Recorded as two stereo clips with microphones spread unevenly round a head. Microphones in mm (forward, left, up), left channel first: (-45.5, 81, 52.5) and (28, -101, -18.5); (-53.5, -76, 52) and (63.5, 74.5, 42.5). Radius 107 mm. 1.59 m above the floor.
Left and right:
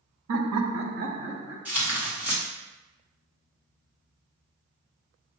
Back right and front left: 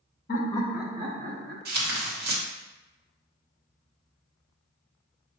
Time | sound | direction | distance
0.3 | laughter | 90° right | 0.7 m
1.6 | tearing paper | 10° left | 1.2 m